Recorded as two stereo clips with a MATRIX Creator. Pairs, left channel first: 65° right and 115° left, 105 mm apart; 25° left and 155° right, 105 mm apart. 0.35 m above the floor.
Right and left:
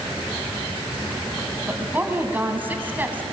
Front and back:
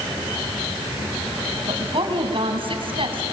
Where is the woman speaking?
Straight behind, 3 m.